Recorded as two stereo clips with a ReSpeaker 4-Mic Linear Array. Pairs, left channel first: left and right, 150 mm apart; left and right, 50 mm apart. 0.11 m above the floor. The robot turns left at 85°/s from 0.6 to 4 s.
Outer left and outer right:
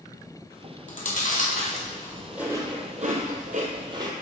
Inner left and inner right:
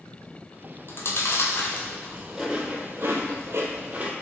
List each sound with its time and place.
0.9 s chewing: 60° left (ahead or behind), 0.8 m; by 4.1 s 30° right (ahead or behind), 0.8 m